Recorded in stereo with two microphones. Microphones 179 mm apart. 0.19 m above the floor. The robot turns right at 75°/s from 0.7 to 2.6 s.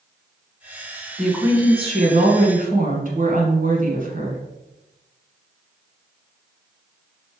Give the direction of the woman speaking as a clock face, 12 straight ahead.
6 o'clock.